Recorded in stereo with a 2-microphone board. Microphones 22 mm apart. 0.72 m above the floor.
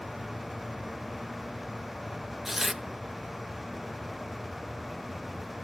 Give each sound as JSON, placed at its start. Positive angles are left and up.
{"t": 2.5, "sound": "tearing paper", "side_deg": -10, "distance_m": 0.5}